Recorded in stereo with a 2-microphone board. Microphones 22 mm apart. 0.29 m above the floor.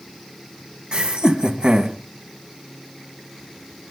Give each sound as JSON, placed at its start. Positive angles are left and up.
{"t": 0.9, "sound": "laughter", "side_deg": -50, "distance_m": 2.5}